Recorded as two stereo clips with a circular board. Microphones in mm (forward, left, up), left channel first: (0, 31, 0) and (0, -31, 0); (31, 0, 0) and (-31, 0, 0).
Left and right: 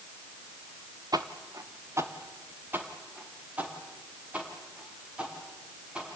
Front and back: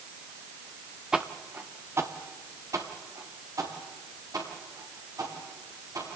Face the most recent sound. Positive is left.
turn(degrees=-165)